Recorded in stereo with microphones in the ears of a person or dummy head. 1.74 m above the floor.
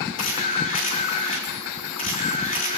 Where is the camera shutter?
45° left (ahead or behind), 4 m.